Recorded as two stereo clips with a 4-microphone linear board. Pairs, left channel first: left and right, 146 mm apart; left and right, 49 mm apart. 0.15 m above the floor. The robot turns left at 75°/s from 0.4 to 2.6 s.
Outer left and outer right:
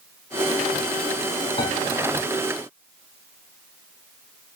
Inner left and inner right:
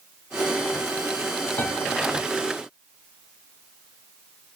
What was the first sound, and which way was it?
A piano, 40° left (ahead or behind).